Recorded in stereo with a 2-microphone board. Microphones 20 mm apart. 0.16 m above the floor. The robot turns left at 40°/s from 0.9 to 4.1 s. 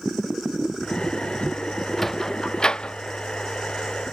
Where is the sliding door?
5° left (ahead or behind); by 3.0 s 45° left (ahead or behind).